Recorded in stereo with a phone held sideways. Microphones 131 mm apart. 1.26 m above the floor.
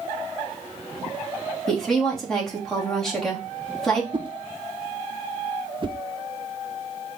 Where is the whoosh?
35° right (ahead or behind), 0.7 m.